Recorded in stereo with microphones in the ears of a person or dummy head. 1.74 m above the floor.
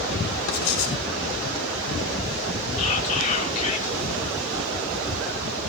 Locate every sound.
0.5 s writing: 80° left, 5.5 m
2.8 s whispering: 40° left (ahead or behind), 5.5 m